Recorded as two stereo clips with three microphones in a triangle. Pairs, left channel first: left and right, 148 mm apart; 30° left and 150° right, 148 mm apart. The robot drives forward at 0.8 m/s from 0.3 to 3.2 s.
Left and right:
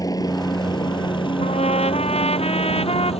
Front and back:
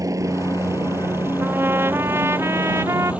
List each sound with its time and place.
0.0 s a helicopter: 150° left; by 3.2 s 130° left
1.4 s a trumpet: 135° left; by 3.1 s 140° left